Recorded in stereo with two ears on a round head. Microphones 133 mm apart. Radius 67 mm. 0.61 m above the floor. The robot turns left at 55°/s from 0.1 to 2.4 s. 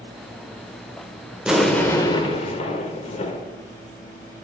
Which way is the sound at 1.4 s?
170° right.